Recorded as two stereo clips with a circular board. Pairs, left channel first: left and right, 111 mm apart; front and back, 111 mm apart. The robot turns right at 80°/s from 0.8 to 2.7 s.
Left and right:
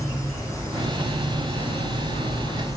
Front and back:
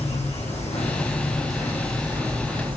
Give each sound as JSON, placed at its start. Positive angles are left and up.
{"t": 0.0, "sound": "an insect", "azimuth_deg": -5, "distance_m": 5.0}